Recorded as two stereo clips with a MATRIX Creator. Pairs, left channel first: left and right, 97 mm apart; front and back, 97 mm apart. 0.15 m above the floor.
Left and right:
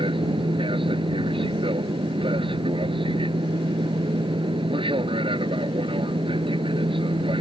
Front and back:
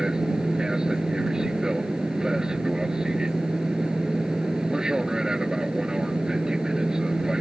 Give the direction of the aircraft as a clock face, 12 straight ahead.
3 o'clock.